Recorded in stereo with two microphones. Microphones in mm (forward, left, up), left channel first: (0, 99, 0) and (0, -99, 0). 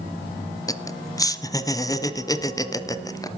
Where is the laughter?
20° left (ahead or behind), 1.0 m.